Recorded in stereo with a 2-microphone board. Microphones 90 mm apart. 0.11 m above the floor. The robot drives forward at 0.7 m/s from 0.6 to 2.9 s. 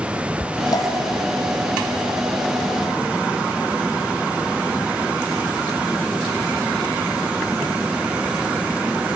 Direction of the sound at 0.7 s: 45° left (ahead or behind).